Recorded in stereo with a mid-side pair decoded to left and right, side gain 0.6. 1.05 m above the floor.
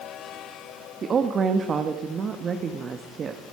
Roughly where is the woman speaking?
Ahead right.